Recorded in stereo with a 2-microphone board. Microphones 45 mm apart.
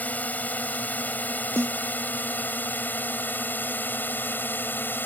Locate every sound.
0.0 s a drone: 35° left (ahead or behind); by 5.1 s 50° left (ahead or behind)
1.6 s a snare drum: 70° right (ahead or behind)